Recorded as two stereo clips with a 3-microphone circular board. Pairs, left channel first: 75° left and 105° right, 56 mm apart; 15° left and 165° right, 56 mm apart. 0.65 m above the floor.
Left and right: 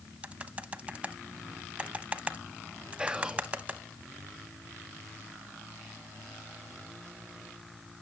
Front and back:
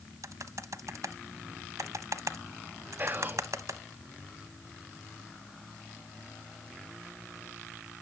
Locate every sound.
0.2 s typing on a keyboard: 170° right, 0.9 m
3.0 s whispering: 170° right, 0.6 m